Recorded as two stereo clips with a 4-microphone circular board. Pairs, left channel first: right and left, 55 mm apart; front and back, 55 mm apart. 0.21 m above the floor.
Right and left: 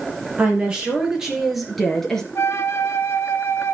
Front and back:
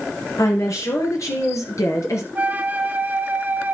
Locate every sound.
0.4 s a woman speaking: 25° left, 5 m; by 2.2 s 10° right, 3.5 m
2.4 s a flute: 125° right, 0.8 m